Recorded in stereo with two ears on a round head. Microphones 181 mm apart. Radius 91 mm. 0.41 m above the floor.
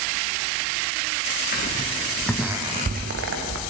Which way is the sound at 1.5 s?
40° left (ahead or behind).